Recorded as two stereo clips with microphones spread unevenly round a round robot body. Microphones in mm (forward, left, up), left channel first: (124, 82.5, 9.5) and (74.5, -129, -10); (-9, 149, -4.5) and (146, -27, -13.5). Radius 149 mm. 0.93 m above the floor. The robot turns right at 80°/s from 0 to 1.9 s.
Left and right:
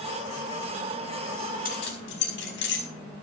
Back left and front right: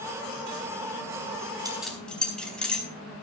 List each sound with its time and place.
1.6 s keys jangling: 25° left, 4.5 m; by 2.9 s 45° left, 4.5 m